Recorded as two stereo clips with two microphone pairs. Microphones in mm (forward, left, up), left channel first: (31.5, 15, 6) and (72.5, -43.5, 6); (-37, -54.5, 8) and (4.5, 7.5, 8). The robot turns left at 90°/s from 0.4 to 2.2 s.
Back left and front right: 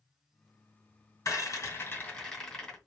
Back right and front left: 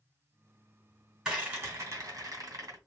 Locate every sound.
1.2 s a rattle: 135° left, 2.5 m; by 2.8 s 50° left, 2.5 m